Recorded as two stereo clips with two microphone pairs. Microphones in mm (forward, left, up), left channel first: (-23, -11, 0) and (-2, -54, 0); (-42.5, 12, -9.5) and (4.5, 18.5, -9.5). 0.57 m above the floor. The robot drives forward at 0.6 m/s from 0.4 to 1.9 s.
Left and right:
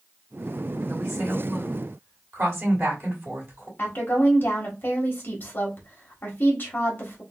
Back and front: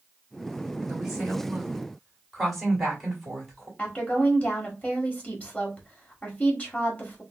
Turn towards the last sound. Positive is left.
turn(degrees=140)